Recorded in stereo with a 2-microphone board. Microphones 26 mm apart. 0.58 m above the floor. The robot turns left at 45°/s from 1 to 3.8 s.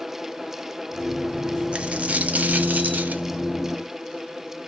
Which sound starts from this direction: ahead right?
A dropped coin, at 1.7 s.